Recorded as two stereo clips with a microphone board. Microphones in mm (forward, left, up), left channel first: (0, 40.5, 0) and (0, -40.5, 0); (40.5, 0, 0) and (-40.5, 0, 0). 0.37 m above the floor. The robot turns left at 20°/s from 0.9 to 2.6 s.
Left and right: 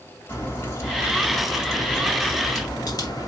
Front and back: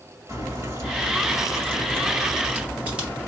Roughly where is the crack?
Behind left.